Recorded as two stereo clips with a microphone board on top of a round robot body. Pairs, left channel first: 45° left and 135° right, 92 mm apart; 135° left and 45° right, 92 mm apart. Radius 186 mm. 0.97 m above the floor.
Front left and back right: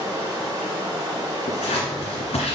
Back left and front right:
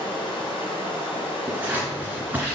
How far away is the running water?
About 1.4 m.